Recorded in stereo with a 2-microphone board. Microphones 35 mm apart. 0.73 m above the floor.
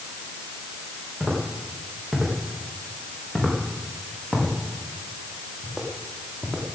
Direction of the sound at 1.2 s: 30° right (ahead or behind).